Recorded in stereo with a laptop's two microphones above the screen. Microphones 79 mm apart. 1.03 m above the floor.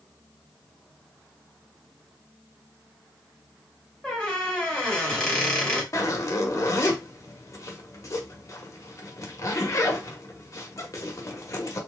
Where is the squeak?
10° left (ahead or behind), 1.4 m.